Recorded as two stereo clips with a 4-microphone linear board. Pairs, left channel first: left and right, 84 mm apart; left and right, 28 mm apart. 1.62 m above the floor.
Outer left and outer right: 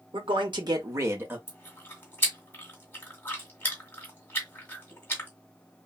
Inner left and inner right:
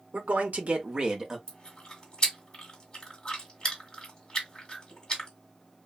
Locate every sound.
0.1 s a man speaking: 75° right (ahead or behind), 0.9 m; by 1.4 s 20° right (ahead or behind), 1.2 m
1.5 s chewing: 25° left (ahead or behind), 1.5 m